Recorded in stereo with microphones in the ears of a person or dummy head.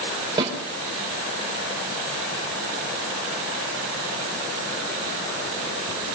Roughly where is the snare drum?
Right.